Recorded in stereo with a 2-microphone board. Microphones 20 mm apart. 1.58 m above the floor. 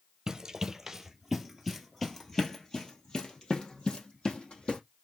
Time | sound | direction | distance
0.3 | running footsteps | 25° right (ahead or behind) | 1.8 m